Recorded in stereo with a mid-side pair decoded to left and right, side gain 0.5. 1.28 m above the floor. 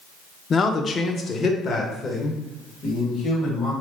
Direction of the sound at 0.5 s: 40° left.